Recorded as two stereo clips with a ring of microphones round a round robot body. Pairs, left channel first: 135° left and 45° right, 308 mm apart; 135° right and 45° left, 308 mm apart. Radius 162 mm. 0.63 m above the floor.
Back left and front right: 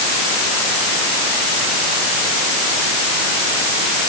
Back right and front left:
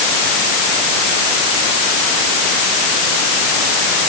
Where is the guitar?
I don't hear a guitar.